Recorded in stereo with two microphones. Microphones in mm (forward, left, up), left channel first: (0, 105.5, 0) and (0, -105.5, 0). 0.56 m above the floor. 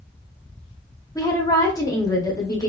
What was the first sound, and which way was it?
A woman speaking, 15° left (ahead or behind).